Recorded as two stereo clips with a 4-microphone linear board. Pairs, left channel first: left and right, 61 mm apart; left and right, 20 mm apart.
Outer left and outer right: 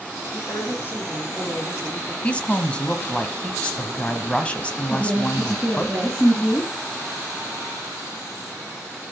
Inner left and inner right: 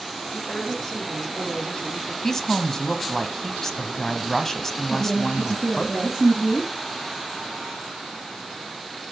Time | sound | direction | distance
0.3 | a woman speaking | 40° left (ahead or behind) | 7.5 m
2.2 | a woman speaking | 20° left (ahead or behind) | 1.1 m
4.9 | a woman speaking | centre (ahead or behind) | 3.5 m